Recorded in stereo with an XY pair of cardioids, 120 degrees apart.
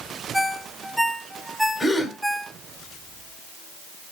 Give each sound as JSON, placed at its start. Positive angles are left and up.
{"t": 0.3, "sound": "a ringtone", "azimuth_deg": 0, "distance_m": 1.0}
{"t": 1.8, "sound": "a gasp", "azimuth_deg": 20, "distance_m": 2.5}